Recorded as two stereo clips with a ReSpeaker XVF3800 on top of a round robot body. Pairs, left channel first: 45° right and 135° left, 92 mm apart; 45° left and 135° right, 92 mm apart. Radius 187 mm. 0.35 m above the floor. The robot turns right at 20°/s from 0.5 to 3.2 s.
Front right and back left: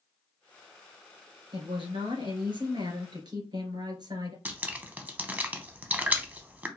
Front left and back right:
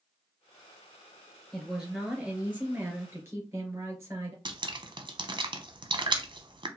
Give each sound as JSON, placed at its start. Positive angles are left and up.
{"t": 1.5, "sound": "a woman speaking", "azimuth_deg": 130, "distance_m": 2.5}
{"t": 4.5, "sound": "dripping", "azimuth_deg": -155, "distance_m": 0.9}